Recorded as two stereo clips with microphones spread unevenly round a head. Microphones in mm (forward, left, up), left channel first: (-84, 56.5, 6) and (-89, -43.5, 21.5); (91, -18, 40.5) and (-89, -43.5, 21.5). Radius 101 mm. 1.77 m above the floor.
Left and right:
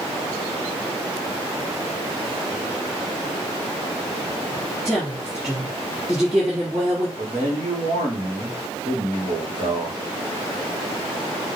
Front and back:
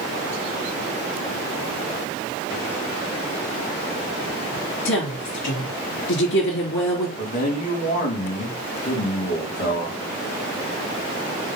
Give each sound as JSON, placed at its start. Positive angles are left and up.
{"t": 4.8, "sound": "a woman speaking", "azimuth_deg": -5, "distance_m": 3.0}
{"t": 7.2, "sound": "a man speaking", "azimuth_deg": -40, "distance_m": 3.0}